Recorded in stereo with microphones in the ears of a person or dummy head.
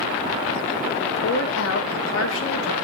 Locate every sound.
1.0 s a woman speaking: 60° left (ahead or behind), 1.6 m; by 2.7 s 50° left (ahead or behind), 1.5 m